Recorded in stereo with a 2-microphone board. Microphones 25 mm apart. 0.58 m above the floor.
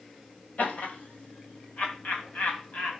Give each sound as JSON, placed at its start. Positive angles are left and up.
{"t": 0.6, "sound": "laughter", "side_deg": 75, "distance_m": 2.5}